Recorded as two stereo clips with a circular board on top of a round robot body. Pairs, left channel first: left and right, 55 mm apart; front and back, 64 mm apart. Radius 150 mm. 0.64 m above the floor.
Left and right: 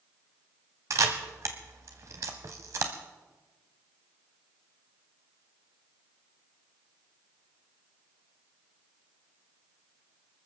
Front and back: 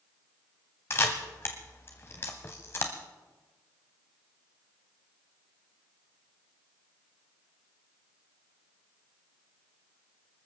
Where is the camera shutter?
55° right, 0.9 m.